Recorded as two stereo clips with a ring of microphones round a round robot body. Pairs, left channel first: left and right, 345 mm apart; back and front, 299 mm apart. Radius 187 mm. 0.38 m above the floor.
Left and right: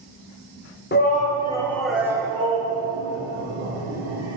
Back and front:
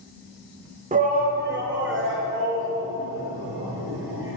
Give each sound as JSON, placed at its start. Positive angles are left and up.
{"t": 0.9, "sound": "a shout", "azimuth_deg": 50, "distance_m": 1.2}